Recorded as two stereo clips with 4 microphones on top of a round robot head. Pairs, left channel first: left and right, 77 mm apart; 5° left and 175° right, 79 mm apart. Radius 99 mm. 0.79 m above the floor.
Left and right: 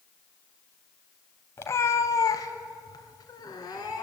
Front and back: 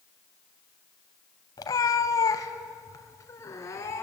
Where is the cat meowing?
35° left, 0.8 m; by 4.0 s 55° left, 2.5 m.